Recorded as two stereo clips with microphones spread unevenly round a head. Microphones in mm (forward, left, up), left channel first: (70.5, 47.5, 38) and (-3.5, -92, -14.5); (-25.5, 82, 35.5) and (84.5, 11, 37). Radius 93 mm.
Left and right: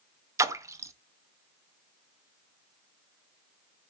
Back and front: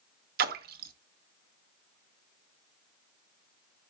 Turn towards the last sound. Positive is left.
turn(degrees=-45)